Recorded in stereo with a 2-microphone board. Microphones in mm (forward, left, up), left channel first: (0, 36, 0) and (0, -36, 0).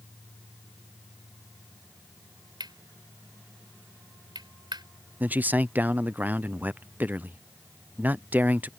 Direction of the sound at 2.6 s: 75° right (ahead or behind).